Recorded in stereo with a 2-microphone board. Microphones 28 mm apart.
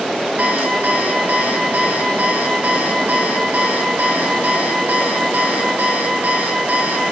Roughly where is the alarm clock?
Right.